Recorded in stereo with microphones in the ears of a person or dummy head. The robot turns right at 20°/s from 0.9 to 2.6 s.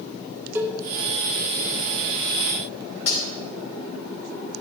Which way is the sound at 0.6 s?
10° right (ahead or behind).